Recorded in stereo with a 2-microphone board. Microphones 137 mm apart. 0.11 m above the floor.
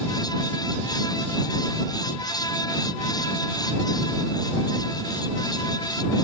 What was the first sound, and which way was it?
Only background noise.